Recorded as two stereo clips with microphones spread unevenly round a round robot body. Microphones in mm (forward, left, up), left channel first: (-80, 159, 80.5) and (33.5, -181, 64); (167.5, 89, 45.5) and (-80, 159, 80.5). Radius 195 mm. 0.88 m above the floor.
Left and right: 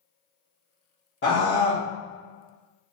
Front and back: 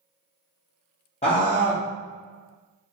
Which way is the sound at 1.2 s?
45° left.